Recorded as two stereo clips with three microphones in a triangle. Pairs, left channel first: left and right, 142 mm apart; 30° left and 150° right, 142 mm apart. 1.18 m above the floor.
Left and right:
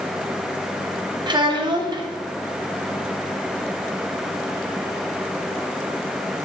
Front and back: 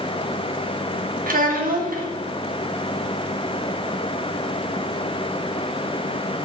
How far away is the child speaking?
About 1.1 m.